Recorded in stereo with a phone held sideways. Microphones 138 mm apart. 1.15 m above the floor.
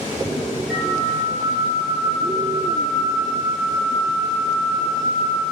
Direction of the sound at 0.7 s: 5° right (ahead or behind).